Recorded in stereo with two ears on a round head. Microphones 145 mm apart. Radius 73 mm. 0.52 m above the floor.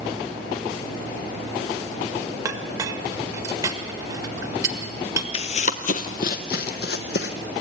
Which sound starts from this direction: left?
Running footsteps, at 5.3 s.